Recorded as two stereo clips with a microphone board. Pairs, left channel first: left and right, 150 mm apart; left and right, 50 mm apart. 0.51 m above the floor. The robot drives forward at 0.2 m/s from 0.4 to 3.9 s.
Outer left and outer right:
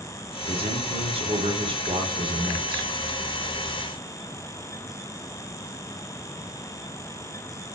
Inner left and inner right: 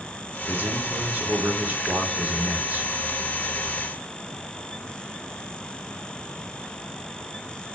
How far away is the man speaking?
About 1.0 m.